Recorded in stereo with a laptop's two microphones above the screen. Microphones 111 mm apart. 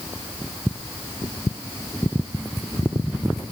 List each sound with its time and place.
Only background noise.